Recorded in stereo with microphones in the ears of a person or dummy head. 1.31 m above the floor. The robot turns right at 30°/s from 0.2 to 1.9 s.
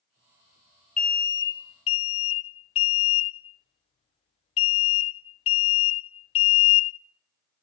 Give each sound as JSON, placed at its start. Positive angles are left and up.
{"t": 1.0, "sound": "an alarm", "side_deg": 10, "distance_m": 0.5}